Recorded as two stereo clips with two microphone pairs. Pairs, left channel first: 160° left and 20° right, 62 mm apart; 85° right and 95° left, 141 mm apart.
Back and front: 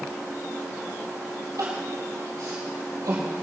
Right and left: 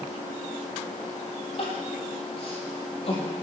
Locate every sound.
1.6 s crying: 45° right, 4 m